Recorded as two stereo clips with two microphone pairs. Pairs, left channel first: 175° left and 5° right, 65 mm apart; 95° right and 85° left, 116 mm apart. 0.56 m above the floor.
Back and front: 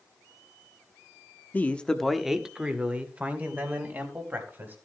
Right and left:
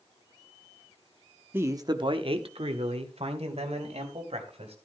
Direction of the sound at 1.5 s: 135° left.